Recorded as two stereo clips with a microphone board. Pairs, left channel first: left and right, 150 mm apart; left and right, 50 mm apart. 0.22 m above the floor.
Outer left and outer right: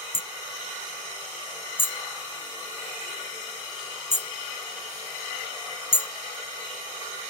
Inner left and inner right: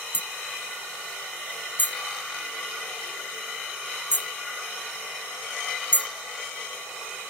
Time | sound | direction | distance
0.1 | hammering | 40° left (ahead or behind) | ?